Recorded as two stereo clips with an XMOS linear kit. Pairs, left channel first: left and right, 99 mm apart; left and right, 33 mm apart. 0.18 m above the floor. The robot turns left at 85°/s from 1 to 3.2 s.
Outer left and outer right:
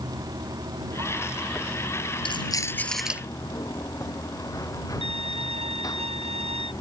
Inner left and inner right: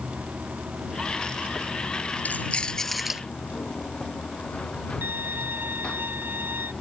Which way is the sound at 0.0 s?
140° right.